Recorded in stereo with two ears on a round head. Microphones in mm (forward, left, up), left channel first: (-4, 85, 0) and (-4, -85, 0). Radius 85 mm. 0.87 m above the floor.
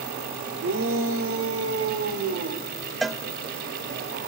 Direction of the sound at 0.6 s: 65° right (ahead or behind).